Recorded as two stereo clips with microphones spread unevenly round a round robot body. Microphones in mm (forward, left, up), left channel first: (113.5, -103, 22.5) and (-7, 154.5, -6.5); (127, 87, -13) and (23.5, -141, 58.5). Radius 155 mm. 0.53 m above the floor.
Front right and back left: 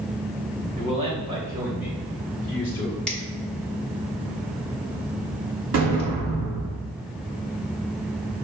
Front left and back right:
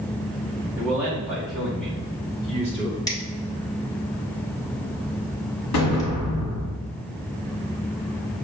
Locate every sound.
0.8 s a man speaking: 135° left, 1.3 m; by 3.0 s 15° left, 1.4 m
3.1 s a finger snap: 25° left, 1.3 m
5.7 s an explosion: 75° left, 1.7 m